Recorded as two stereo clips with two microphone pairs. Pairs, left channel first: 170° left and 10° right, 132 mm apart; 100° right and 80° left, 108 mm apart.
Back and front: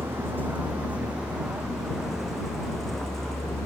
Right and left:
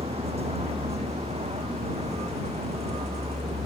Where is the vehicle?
65° left; by 3.7 s 85° left.